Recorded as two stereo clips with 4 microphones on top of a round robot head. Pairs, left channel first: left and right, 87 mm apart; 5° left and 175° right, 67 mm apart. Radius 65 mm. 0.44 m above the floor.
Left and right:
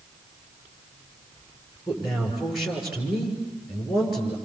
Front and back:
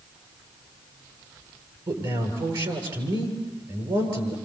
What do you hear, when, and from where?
1.9 s a man speaking: straight behind, 7.5 m